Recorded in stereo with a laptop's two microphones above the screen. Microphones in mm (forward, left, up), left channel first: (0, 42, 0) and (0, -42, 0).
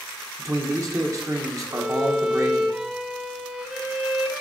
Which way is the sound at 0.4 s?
40° right (ahead or behind).